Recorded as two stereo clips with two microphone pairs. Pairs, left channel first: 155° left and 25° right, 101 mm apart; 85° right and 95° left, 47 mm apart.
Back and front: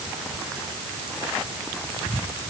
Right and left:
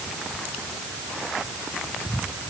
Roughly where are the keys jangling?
No keys jangling in this recording.